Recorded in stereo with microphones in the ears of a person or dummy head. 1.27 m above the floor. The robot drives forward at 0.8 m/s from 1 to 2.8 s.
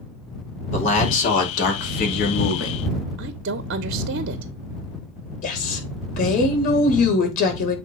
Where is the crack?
I don't hear a crack.